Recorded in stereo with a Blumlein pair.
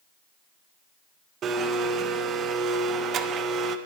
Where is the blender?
30° right, 0.6 m.